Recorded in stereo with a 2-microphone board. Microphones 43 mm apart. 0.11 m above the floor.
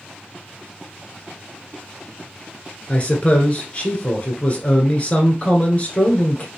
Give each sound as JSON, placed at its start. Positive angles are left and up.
{"t": 2.9, "sound": "a man speaking", "side_deg": 35, "distance_m": 1.2}